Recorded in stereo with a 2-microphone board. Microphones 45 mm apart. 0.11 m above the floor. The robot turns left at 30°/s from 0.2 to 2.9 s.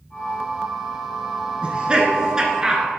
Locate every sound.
1.6 s laughter: 25° right (ahead or behind), 1.1 m; by 2.8 s 15° right (ahead or behind), 1.1 m